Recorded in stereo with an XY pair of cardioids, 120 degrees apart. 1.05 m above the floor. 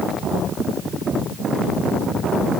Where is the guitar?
I don't hear a guitar.